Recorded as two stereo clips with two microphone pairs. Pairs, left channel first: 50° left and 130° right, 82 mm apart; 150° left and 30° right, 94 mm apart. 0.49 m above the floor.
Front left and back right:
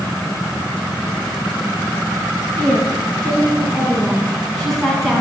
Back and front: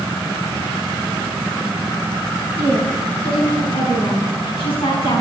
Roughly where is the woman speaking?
Behind left.